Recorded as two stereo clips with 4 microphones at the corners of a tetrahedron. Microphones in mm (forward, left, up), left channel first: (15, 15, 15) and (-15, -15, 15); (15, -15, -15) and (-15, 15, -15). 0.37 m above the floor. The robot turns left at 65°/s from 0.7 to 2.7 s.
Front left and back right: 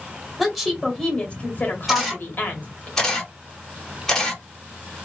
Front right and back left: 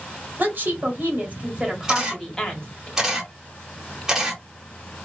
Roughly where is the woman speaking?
Behind left.